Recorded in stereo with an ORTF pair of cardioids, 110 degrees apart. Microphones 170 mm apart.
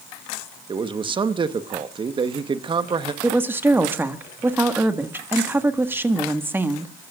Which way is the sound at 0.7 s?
30° right.